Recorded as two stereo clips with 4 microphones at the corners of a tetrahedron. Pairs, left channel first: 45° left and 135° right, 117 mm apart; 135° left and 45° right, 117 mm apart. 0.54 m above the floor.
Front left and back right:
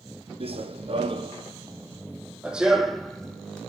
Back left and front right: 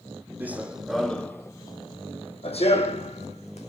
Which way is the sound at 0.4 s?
115° right.